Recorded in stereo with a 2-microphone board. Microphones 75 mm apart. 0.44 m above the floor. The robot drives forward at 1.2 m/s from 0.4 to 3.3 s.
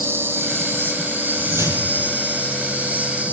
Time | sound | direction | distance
0.0 | an insect | 30° right (ahead or behind) | 5 m
1.4 | a whoosh | 35° right (ahead or behind) | 7 m